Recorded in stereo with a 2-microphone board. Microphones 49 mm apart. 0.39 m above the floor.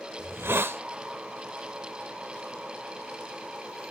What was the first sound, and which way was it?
A hiss, 50° right (ahead or behind).